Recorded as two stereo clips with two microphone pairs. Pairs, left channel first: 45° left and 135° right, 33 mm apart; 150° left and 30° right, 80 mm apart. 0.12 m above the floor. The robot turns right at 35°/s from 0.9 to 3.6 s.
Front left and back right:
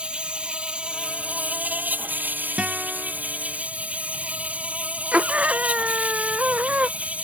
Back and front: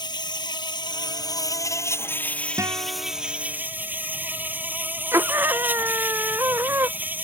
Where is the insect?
170° left; by 7.3 s 95° right.